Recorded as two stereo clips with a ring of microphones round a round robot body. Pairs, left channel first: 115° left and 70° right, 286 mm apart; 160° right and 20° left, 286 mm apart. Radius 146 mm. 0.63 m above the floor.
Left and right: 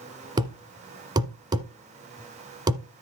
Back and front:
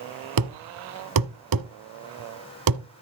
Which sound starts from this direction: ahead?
A thud, at 0.4 s.